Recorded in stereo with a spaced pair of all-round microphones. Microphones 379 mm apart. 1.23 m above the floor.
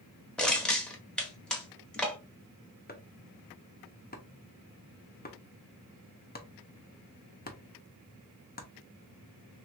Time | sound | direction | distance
0.4 | crushing | centre (ahead or behind) | 1.1 m
2.9 | chopping | 25° left (ahead or behind) | 0.7 m